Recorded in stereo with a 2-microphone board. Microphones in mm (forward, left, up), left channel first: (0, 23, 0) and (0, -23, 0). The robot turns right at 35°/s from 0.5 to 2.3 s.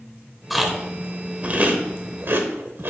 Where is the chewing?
Centre (ahead or behind), 0.9 m; by 2.9 s 55° right (ahead or behind), 0.9 m.